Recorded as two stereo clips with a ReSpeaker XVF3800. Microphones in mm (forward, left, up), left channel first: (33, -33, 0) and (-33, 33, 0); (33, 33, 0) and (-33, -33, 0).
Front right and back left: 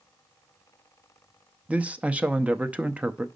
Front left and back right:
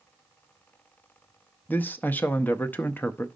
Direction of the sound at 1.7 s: 80° left.